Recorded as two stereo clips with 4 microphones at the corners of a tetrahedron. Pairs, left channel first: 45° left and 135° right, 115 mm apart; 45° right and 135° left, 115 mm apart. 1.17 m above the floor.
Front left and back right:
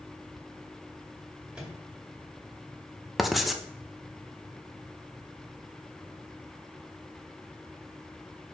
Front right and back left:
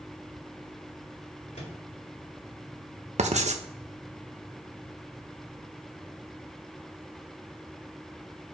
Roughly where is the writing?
Behind left.